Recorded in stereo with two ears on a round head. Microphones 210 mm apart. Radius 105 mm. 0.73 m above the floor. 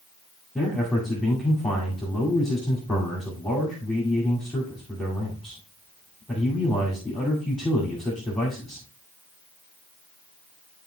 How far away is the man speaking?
About 2.0 m.